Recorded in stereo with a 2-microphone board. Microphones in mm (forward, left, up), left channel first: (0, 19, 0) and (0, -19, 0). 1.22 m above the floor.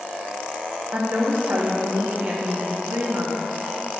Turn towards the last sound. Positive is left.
turn(degrees=-50)  # may be behind; listen again after turning